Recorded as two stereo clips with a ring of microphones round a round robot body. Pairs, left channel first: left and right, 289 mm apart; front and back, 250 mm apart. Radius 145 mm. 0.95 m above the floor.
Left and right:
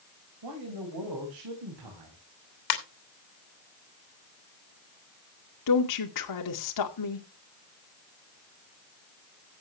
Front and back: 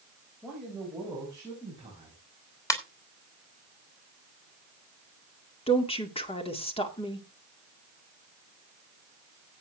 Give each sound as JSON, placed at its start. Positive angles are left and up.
{"t": 0.4, "sound": "a man speaking", "azimuth_deg": -90, "distance_m": 4.5}
{"t": 2.7, "sound": "a ringtone", "azimuth_deg": 80, "distance_m": 3.0}
{"t": 5.7, "sound": "a woman speaking", "azimuth_deg": 70, "distance_m": 2.5}